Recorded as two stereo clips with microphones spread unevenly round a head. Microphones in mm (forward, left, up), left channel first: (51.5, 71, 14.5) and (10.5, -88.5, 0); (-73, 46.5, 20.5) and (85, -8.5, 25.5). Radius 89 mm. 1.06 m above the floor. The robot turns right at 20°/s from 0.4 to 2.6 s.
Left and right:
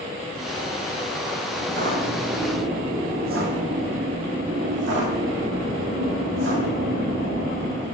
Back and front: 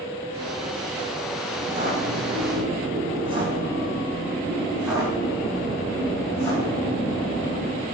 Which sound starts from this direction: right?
Footsteps, at 1.6 s.